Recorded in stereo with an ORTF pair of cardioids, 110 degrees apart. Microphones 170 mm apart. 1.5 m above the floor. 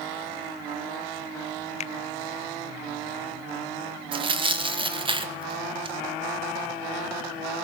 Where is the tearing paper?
30° right, 2 m.